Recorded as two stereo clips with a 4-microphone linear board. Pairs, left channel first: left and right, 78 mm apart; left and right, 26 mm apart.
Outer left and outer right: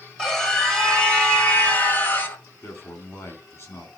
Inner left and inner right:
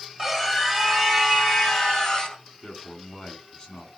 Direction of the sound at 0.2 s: 5° left (ahead or behind).